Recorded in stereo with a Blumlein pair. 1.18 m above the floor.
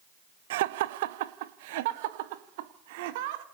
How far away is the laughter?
About 1.0 m.